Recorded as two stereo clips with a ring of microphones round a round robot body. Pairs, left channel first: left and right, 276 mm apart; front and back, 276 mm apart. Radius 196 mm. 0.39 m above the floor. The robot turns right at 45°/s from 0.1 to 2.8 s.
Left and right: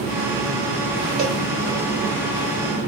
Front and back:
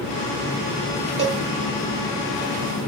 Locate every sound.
1.2 s a cowbell: 135° right, 1.5 m; by 1.4 s 125° right, 1.5 m